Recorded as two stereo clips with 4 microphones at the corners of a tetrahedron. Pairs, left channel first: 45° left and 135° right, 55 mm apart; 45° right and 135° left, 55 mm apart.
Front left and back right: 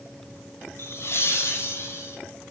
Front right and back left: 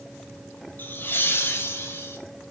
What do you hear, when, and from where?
0.8 s laughter: 10° left, 2.5 m; by 2.2 s 5° left, 4 m